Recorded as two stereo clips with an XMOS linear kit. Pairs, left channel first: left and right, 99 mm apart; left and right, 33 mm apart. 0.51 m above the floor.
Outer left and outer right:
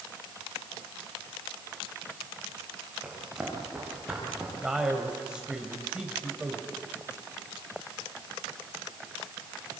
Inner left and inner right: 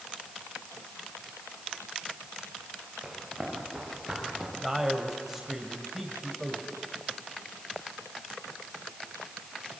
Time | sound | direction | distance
3.0 | running footsteps | 10° right (ahead or behind) | 9 m
4.6 | a man speaking | 10° right (ahead or behind) | 2.5 m